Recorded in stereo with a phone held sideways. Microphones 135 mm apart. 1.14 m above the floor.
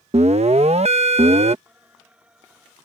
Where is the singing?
10° right (ahead or behind).